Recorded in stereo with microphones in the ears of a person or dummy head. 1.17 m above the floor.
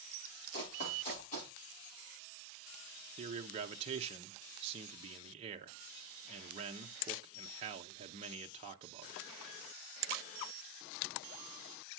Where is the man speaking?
30° right (ahead or behind), 0.7 m.